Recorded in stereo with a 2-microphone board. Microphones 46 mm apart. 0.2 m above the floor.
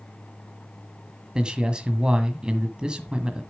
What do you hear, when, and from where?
1.4 s a man speaking: 20° right (ahead or behind), 1.4 m